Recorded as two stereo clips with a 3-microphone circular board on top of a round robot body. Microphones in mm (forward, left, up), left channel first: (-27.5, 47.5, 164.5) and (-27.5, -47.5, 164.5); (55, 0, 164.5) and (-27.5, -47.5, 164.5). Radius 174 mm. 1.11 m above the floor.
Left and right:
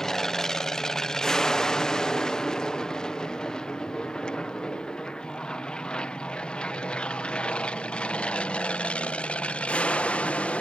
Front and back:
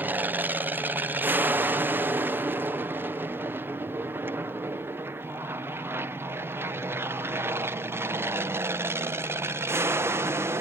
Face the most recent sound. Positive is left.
turn(degrees=160)